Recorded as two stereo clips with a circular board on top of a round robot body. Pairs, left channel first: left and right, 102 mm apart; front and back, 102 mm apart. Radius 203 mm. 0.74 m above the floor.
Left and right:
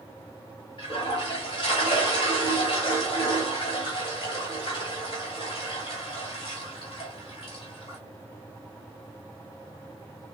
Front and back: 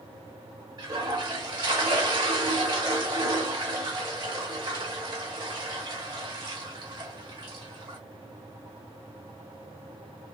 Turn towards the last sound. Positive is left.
turn(degrees=130)